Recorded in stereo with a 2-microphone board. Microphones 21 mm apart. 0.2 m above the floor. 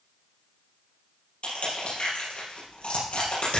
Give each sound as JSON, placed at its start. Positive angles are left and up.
{"t": 1.4, "sound": "crushing", "side_deg": 60, "distance_m": 5.5}